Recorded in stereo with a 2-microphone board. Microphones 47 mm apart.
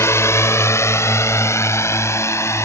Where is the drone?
75° left (ahead or behind); by 2.6 s 85° left.